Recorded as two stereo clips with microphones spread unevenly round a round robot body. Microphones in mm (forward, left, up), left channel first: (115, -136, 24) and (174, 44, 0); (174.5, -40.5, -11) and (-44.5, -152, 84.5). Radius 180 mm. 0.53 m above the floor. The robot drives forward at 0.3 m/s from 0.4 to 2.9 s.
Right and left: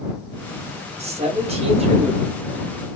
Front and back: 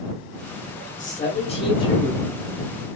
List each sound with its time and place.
1.0 s a man speaking: 35° left, 1.0 m; by 2.2 s 60° left, 0.8 m